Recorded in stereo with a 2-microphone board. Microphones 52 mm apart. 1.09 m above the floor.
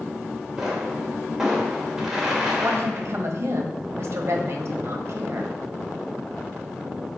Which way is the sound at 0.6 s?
10° right (ahead or behind).